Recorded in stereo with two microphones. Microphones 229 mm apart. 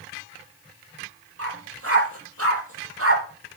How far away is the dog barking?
About 9.5 m.